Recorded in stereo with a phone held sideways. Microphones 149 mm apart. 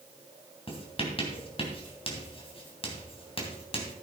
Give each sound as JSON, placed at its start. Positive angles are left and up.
{"t": 0.7, "sound": "writing", "side_deg": 40, "distance_m": 3.0}